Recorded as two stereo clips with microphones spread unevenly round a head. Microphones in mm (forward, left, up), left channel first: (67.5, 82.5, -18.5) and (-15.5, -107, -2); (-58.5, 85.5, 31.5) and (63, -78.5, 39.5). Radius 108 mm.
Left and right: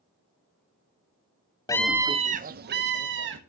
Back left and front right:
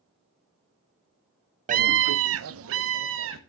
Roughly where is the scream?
Ahead.